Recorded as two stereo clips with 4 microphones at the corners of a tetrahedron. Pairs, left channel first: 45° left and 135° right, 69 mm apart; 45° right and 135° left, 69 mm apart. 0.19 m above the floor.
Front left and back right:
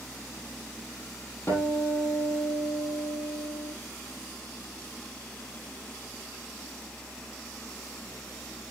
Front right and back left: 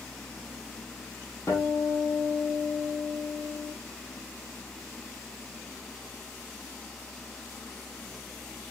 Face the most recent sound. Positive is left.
turn(degrees=-5)